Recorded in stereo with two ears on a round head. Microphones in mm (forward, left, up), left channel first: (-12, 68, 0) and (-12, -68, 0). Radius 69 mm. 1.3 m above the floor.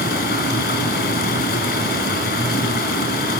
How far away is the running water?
About 3 m.